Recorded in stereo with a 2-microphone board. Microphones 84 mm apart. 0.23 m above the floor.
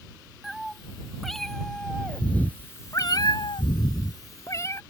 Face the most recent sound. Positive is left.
turn(degrees=35)  # may be behind; listen again after turning